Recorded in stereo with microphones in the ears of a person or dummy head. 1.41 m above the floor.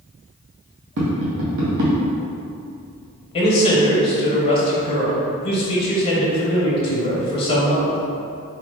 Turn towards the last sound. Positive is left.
turn(degrees=30)  # may be behind; listen again after turning